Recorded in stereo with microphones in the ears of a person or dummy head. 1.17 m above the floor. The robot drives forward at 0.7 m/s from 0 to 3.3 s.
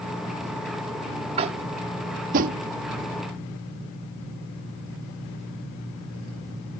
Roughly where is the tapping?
Right.